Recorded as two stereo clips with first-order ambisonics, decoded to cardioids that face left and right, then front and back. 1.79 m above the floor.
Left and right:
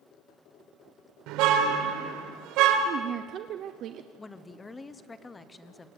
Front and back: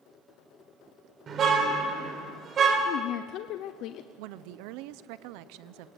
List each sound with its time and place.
1.3 s a car horn: 120° right, 3.5 m
2.9 s a woman speaking: 40° right, 0.8 m
4.2 s a woman speaking: 165° left, 1.0 m